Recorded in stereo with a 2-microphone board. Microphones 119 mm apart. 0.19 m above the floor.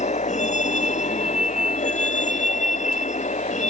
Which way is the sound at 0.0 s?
80° left.